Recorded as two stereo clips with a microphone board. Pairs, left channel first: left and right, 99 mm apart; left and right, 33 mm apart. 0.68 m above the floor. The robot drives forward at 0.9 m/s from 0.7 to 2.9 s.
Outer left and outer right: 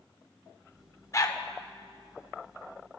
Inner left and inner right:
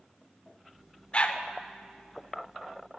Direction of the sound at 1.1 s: 30° left (ahead or behind).